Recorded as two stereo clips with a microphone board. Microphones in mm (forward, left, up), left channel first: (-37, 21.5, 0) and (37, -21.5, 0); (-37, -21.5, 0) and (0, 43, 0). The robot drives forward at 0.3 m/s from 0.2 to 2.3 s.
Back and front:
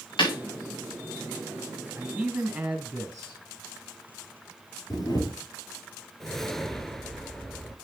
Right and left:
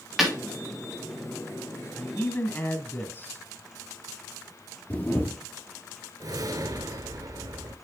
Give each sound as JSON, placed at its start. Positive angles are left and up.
{"t": 0.2, "sound": "breaking glass", "azimuth_deg": 150, "distance_m": 4.0}
{"t": 1.9, "sound": "a man speaking", "azimuth_deg": -100, "distance_m": 1.5}
{"t": 4.9, "sound": "a camera shutter", "azimuth_deg": 180, "distance_m": 2.5}
{"t": 6.2, "sound": "a whoosh", "azimuth_deg": 65, "distance_m": 0.7}